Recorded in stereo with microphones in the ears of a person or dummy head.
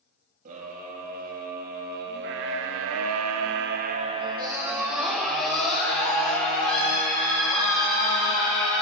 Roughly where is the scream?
Right.